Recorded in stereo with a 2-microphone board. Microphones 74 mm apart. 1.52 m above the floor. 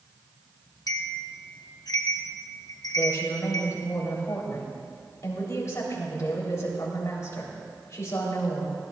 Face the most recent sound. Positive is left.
turn(degrees=45)  # may be behind; listen again after turning